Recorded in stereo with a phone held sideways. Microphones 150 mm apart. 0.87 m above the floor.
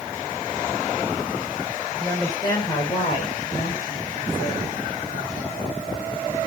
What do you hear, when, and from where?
2.0 s a woman speaking: 15° left (ahead or behind), 2.5 m; by 5.3 s 75° left (ahead or behind), 5 m